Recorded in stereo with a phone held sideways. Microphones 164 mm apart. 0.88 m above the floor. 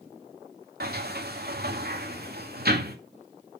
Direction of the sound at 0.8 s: 65° right (ahead or behind).